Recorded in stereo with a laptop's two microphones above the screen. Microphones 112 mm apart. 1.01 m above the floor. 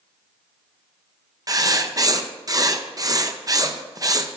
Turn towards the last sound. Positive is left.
turn(degrees=-35)  # may be behind; listen again after turning